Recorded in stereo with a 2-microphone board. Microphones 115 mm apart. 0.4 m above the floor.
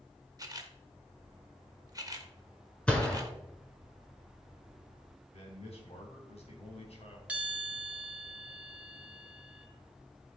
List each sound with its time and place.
0.4 s a camera shutter: 30° right (ahead or behind), 1.2 m
2.9 s a gunshot: 10° left (ahead or behind), 1.9 m
5.3 s a man speaking: 60° left (ahead or behind), 3 m
7.3 s a bell: 10° right (ahead or behind), 1.1 m